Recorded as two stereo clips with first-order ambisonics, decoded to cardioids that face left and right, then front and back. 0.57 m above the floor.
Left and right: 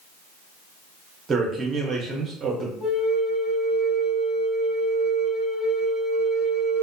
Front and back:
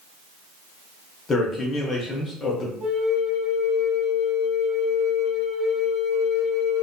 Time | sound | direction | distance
1.3 | a man speaking | 40° right | 0.7 m
2.8 | a flute | 140° left | 1.6 m